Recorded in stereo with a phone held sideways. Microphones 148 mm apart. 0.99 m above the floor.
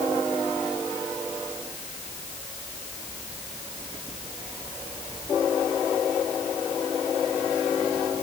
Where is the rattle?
I don't hear a rattle.